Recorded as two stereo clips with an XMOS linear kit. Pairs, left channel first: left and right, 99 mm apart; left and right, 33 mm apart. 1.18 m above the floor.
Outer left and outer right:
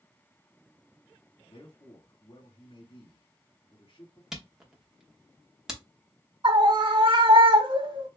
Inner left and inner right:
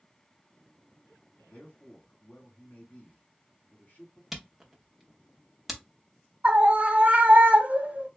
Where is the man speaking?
70° left (ahead or behind), 2 m.